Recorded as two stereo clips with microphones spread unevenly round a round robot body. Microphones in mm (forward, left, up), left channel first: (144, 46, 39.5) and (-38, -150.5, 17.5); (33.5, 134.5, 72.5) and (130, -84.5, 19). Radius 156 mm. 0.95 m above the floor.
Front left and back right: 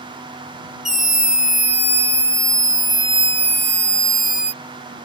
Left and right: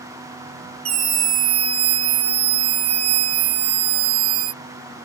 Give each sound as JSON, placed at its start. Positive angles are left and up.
{"t": 0.8, "sound": "a scream", "azimuth_deg": -45}